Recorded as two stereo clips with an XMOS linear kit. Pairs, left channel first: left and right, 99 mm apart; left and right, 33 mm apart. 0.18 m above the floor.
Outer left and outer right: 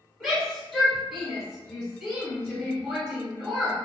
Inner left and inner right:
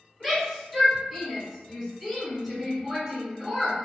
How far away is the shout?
About 1.9 m.